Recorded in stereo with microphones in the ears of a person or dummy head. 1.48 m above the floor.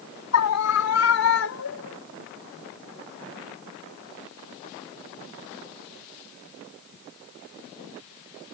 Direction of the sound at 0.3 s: 85° left.